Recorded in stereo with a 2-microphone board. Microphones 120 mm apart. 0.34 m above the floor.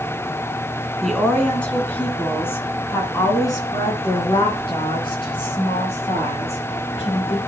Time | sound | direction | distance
1.0 | a woman speaking | 5° left (ahead or behind) | 3 m